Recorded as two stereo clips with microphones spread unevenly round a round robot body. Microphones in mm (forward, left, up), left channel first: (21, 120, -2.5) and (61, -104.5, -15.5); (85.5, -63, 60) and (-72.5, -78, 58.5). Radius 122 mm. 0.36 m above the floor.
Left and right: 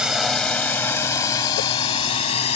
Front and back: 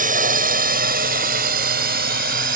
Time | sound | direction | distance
0.0 | a drone | 165° right | ?